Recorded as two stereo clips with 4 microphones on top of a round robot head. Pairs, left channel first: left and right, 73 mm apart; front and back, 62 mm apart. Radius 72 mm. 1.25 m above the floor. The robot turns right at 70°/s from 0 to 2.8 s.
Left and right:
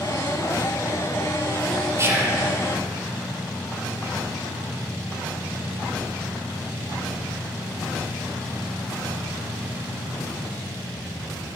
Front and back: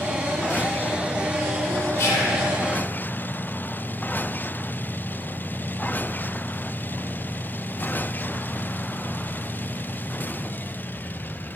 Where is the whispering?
40° right, 0.5 m; by 2.4 s 10° right, 0.5 m.